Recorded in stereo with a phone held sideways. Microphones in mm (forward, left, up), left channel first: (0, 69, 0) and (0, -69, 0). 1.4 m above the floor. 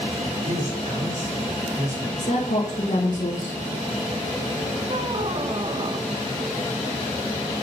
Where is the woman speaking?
75° left (ahead or behind), 1.2 m.